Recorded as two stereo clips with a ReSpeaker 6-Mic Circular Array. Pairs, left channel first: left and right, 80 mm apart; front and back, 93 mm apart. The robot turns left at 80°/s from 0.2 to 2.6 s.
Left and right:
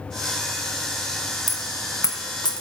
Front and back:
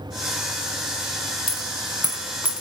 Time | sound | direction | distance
1.5 | a dropped coin | 175° right | 1.6 m